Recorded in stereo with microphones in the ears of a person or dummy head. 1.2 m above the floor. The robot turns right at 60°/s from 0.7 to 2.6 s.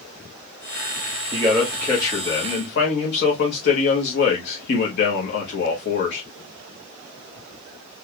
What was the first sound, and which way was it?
A man speaking, 20° right.